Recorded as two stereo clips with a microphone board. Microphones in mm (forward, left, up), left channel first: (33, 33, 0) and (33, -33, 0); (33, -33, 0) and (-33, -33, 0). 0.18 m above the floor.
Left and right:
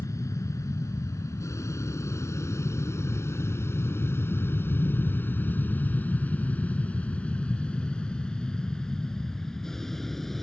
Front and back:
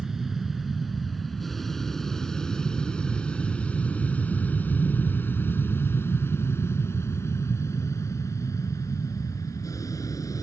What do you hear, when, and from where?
0.0 s an aircraft: 100° left; by 10.4 s 5° left